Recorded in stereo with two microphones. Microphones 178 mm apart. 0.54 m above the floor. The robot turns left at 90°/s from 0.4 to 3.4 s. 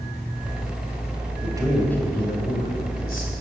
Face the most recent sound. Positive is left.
turn(degrees=35)